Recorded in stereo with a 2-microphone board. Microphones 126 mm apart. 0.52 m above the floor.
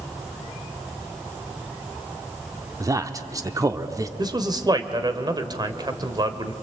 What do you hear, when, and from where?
2.8 s a man speaking: 30° right (ahead or behind), 0.8 m
4.2 s a man speaking: 35° right (ahead or behind), 1.6 m